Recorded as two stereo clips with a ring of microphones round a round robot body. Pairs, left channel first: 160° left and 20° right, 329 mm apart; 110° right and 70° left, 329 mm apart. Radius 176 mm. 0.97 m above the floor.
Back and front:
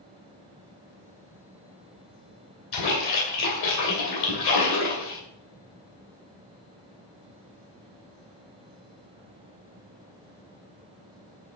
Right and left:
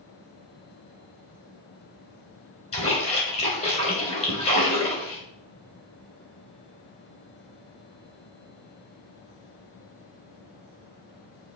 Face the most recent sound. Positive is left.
turn(degrees=175)